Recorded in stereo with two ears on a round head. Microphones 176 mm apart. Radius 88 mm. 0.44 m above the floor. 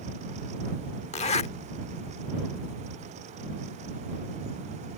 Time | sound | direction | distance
1.1 | a zipper | 35° left (ahead or behind) | ?